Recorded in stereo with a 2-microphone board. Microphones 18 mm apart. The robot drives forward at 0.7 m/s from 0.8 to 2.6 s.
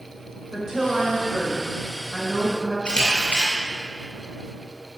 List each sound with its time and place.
0.5 s a woman speaking: 30° right (ahead or behind), 1.6 m; by 2.8 s 20° right (ahead or behind), 2.5 m
2.9 s a camera shutter: 65° left (ahead or behind), 2.5 m